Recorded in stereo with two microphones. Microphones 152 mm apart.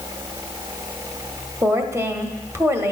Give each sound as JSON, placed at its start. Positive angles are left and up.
{"t": 1.6, "sound": "a woman speaking", "side_deg": -15, "distance_m": 1.0}